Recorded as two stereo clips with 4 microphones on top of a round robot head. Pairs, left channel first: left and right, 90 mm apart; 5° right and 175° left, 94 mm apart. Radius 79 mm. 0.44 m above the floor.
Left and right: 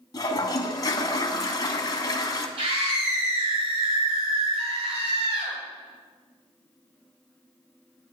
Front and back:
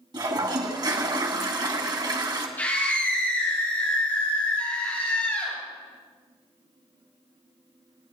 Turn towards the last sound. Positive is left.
turn(degrees=-80)